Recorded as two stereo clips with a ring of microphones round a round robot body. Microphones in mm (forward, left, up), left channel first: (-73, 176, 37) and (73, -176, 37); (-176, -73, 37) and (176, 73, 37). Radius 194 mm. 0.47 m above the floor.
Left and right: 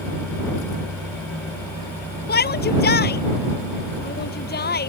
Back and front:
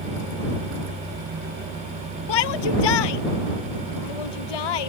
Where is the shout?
Straight behind.